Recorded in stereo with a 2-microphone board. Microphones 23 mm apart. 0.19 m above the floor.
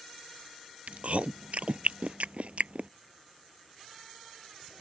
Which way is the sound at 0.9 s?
65° right (ahead or behind).